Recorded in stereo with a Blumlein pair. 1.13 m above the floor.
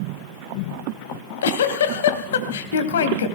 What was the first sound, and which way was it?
A giggle, 60° left.